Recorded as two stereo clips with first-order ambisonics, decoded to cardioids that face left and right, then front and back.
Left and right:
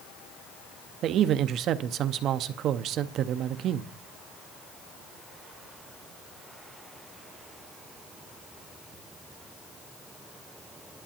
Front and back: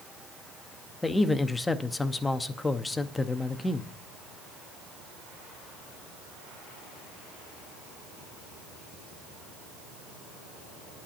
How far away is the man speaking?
About 0.6 m.